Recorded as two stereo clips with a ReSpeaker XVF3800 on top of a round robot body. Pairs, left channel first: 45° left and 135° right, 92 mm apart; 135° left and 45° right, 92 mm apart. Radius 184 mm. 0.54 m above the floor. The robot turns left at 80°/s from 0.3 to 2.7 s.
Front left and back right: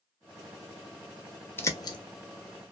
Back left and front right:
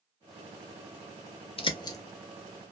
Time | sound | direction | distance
1.6 | a bird | 110° left | 0.7 m